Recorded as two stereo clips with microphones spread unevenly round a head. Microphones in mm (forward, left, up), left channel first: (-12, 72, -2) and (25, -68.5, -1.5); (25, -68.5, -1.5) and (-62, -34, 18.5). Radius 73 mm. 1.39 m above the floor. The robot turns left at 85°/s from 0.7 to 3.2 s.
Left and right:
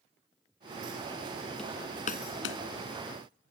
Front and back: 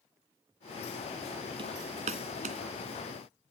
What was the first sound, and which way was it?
Hammering, 170° right.